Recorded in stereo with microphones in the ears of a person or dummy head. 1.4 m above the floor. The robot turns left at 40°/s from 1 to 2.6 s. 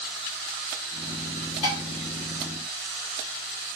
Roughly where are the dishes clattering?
Left.